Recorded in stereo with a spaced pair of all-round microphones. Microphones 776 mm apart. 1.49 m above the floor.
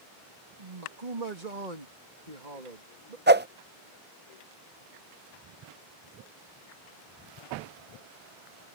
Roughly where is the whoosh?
Centre.